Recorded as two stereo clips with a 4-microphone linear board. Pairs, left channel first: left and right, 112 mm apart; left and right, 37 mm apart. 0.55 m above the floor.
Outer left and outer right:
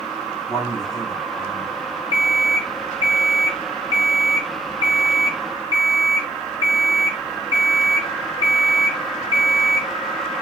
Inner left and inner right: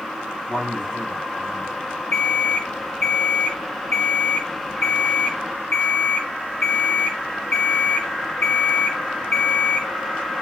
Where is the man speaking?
40° left (ahead or behind), 4 m.